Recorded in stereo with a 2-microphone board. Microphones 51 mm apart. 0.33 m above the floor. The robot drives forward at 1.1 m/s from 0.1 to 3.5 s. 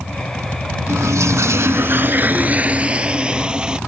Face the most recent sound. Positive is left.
turn(degrees=-20)  # may be behind; listen again after turning